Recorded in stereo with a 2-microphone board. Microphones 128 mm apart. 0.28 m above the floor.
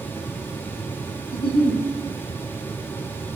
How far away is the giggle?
About 1.7 m.